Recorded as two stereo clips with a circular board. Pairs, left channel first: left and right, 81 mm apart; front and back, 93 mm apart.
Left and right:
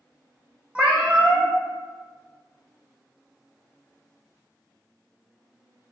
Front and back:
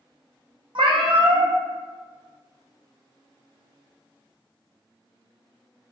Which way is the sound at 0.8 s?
165° right.